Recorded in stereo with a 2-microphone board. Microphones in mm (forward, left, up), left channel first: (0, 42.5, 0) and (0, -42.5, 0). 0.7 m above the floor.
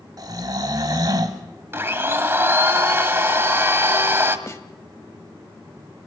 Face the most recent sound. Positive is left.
turn(degrees=35)  # may be behind; listen again after turning